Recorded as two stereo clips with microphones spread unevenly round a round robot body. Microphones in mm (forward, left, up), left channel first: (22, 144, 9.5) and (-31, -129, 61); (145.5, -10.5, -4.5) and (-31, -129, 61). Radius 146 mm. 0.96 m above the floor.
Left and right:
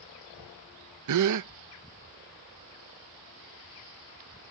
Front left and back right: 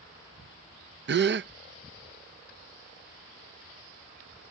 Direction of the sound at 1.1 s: 105° right.